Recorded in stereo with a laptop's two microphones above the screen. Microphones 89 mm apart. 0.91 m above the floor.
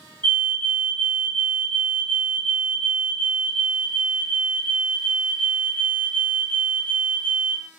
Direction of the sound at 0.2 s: 20° left (ahead or behind).